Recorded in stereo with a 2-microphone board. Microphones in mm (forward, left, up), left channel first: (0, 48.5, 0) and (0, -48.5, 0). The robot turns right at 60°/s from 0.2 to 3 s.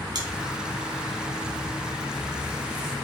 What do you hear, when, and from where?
0.1 s chewing: 45° right (ahead or behind), 0.7 m